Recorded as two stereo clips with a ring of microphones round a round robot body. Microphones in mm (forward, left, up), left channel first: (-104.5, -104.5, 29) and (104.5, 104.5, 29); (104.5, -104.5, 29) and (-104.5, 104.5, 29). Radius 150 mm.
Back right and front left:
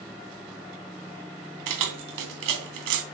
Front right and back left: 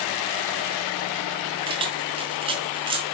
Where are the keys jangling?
65° left, 2.5 m.